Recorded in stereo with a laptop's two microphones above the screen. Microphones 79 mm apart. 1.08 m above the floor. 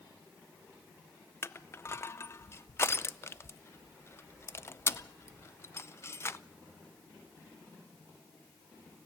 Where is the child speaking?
No child speaking in this recording.